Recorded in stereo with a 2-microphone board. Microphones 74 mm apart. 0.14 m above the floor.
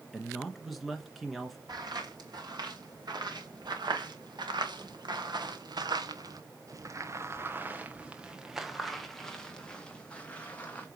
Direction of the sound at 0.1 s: Centre (ahead or behind).